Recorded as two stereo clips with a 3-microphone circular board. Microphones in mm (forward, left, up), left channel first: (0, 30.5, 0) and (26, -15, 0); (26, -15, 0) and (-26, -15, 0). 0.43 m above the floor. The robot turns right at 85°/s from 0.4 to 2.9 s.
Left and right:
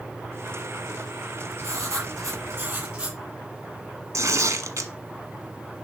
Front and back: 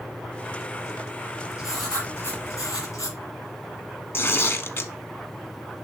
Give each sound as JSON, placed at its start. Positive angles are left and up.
{"t": 1.6, "sound": "writing", "azimuth_deg": -105, "distance_m": 5.5}
{"t": 4.1, "sound": "tearing paper", "azimuth_deg": -45, "distance_m": 1.0}